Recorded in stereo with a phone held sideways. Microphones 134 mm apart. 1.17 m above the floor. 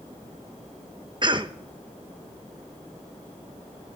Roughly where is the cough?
Right.